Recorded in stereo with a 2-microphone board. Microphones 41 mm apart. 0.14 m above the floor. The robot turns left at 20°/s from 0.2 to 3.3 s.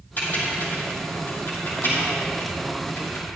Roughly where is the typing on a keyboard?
Left.